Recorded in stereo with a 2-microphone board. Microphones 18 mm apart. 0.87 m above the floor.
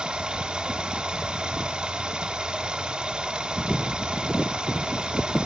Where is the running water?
45° right (ahead or behind), 0.8 m.